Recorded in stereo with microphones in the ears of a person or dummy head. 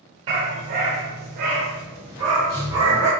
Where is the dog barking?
30° right (ahead or behind), 1.2 m; by 3.1 s 20° right (ahead or behind), 2.0 m.